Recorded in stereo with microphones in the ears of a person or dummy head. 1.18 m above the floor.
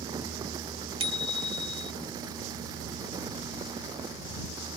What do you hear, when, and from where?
1.0 s a bicycle bell: 30° right (ahead or behind)